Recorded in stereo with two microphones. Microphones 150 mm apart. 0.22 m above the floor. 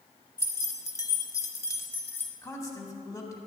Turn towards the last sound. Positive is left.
turn(degrees=20)  # may be behind; listen again after turning